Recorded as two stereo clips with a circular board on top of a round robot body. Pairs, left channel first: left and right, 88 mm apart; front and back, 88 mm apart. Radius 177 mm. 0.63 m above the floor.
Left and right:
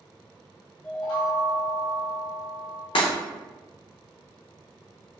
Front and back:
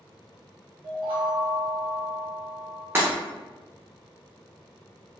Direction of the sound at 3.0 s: 115° left.